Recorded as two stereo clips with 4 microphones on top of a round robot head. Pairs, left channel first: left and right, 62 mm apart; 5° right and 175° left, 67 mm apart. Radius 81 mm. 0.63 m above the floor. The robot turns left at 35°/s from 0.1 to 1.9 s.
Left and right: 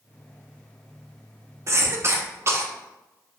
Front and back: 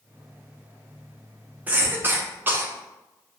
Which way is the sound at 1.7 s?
120° right.